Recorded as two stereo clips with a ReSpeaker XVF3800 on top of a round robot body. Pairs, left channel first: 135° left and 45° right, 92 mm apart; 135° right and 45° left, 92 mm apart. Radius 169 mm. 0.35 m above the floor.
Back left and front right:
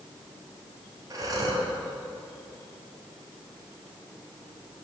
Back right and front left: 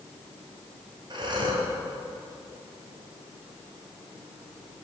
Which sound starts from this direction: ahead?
Breathing, at 1.1 s.